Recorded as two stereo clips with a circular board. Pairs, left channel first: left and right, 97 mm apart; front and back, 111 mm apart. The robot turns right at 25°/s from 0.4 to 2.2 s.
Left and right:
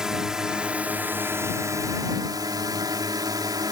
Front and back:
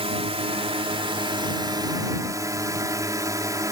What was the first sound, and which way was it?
A drone, 170° right.